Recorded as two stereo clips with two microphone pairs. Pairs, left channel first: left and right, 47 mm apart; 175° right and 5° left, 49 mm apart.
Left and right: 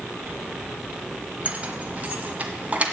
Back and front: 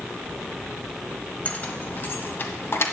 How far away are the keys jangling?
About 1.1 m.